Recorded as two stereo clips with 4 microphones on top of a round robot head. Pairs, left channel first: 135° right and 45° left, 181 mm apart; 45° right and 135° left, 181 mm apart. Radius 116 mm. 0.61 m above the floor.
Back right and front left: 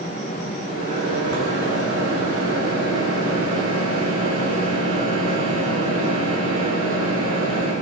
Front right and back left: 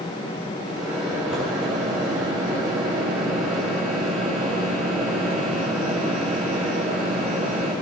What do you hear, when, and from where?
0.7 s a microwave: 50° left, 8 m